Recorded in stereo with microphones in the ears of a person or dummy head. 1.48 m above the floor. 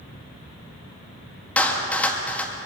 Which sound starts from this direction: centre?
A clap, at 1.6 s.